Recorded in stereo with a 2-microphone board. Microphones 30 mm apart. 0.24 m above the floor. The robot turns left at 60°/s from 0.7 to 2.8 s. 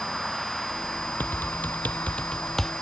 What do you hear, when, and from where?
0.0 s a vehicle: 170° left; by 2.8 s 45° left
1.2 s typing on a keyboard: 80° left; by 2.7 s 5° left (ahead or behind)